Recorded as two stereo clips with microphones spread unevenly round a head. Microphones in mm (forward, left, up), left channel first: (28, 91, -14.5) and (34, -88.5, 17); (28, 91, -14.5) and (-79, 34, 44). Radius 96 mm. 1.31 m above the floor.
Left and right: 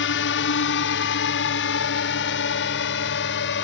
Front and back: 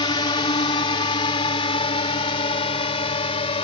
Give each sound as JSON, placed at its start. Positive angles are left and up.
{"t": 0.0, "sound": "a drone", "azimuth_deg": 80}